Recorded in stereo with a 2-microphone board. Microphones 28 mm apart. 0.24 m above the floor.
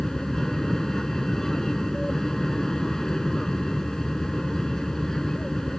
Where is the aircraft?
15° left (ahead or behind).